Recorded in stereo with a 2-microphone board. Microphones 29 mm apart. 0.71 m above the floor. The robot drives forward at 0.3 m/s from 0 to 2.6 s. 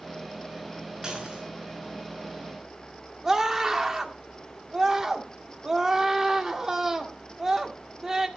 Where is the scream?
15° right (ahead or behind), 1.9 m.